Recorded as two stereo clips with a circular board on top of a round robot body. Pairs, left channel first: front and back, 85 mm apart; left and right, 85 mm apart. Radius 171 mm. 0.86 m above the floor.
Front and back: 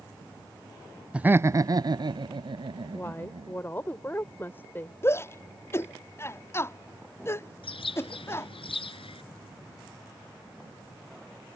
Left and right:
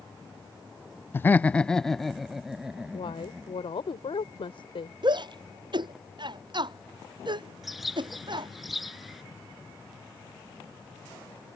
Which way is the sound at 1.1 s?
115° left.